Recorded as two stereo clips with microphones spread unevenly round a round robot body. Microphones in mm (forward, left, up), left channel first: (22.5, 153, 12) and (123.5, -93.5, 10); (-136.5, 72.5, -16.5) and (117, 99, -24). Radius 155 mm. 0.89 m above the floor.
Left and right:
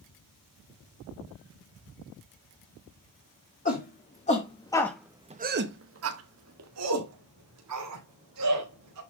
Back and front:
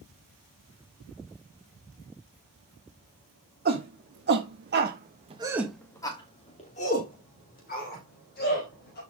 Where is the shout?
55° left, 2.5 m; by 9.0 s 110° right, 5 m.